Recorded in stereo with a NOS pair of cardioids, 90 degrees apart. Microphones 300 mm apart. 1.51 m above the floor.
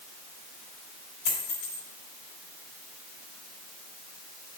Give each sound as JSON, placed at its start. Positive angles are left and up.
{"t": 1.2, "sound": "a dropped coin", "azimuth_deg": 70, "distance_m": 4.0}